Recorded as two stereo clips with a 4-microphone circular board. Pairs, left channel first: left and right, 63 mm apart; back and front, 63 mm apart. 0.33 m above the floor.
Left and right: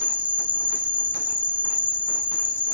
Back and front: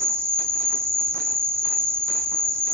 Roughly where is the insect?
Ahead right.